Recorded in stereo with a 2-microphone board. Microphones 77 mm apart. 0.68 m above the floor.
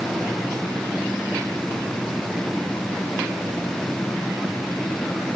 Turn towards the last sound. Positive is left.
No sound to turn to.